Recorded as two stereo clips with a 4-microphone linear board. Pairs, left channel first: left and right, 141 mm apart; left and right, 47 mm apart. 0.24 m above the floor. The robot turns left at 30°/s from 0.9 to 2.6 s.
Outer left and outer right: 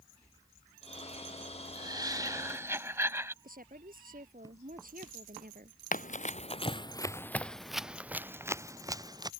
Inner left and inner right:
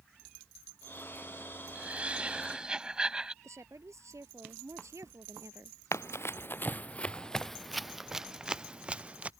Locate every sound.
1.8 s laughter: 30° right (ahead or behind); by 3.3 s 15° right (ahead or behind)
3.4 s a woman speaking: 70° right (ahead or behind)
5.9 s running footsteps: 65° left (ahead or behind); by 9.3 s 25° right (ahead or behind)